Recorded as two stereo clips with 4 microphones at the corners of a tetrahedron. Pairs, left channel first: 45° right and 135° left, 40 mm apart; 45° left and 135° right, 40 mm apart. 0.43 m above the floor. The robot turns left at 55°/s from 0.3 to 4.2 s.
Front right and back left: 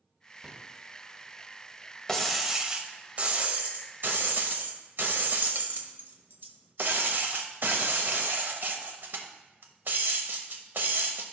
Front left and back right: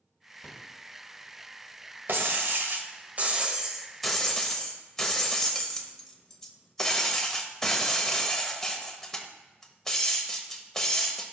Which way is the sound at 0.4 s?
70° left.